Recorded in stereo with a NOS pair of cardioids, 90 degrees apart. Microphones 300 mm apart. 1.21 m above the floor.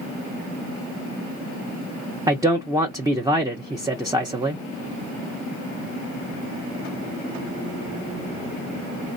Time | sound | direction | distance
2.3 | a man speaking | 15° right | 0.6 m